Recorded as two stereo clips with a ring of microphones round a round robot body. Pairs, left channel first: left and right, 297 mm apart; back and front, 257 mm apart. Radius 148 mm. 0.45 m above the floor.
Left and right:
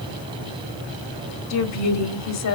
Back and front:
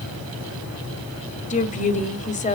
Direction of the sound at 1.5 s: 120° left.